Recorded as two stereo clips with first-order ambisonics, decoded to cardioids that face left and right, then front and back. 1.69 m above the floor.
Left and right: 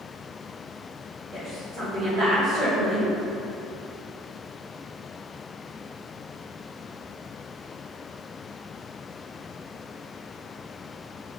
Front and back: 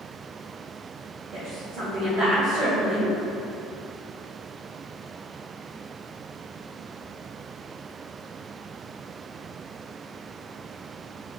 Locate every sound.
1.3 s a woman speaking: 135° right, 1.7 m